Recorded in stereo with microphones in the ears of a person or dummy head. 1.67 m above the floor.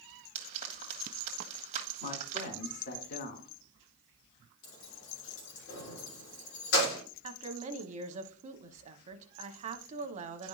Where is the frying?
40° right (ahead or behind), 1.5 m.